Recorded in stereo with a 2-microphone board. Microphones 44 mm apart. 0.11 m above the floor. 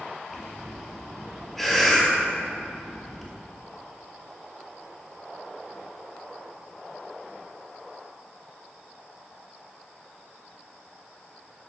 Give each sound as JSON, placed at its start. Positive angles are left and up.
{"t": 0.3, "sound": "breathing", "side_deg": 0, "distance_m": 1.3}